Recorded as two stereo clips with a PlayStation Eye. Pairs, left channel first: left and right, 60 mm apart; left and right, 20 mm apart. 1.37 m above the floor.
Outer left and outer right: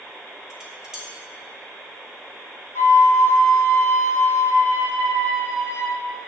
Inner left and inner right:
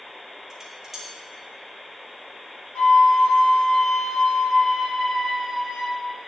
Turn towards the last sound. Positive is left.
turn(degrees=60)  # may be behind; listen again after turning